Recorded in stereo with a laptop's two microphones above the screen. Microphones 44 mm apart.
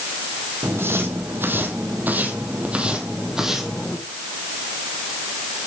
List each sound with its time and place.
0.6 s footsteps: 65° right (ahead or behind), 2.5 m; by 4.0 s 5° right (ahead or behind), 2 m